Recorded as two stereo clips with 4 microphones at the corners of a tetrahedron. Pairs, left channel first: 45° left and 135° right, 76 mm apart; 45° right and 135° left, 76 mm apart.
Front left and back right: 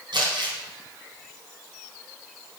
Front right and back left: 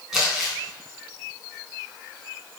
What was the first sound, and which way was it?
Crumpling, 140° right.